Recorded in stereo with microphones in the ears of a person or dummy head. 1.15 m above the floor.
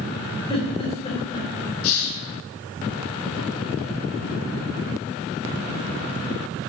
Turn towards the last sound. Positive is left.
turn(degrees=65)  # may be behind; listen again after turning